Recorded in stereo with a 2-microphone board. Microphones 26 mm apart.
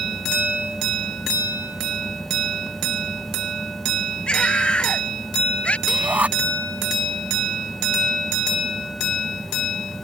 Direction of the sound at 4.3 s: 40° left (ahead or behind).